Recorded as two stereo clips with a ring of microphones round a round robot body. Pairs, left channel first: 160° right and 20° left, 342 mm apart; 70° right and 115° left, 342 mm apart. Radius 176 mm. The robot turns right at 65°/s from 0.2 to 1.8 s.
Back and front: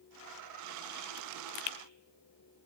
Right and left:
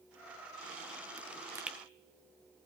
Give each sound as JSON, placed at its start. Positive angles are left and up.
{"t": 1.2, "sound": "a pop", "azimuth_deg": 165, "distance_m": 0.8}